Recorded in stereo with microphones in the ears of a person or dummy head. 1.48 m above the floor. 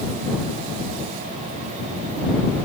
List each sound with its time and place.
Only background noise.